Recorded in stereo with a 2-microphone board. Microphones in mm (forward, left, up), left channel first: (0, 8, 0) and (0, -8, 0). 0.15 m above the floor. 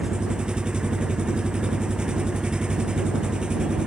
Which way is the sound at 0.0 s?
75° right (ahead or behind).